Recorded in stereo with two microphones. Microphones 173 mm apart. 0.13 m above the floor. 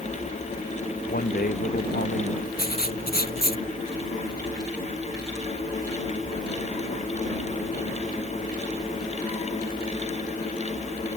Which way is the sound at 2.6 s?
60° left (ahead or behind).